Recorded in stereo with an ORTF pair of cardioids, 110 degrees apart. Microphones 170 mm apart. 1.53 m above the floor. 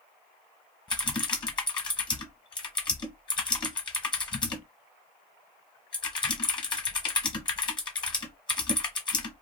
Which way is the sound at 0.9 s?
25° left.